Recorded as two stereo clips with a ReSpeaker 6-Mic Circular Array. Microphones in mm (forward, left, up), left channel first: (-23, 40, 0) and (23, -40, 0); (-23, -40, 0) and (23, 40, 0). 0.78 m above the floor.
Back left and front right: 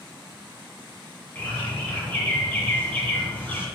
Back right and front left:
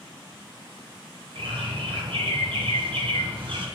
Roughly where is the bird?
Ahead left.